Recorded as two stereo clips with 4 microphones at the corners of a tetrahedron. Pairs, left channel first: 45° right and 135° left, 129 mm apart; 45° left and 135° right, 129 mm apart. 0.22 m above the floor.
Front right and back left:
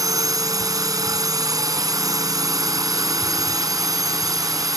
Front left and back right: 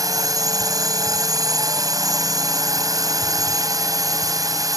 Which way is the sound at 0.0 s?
Straight behind.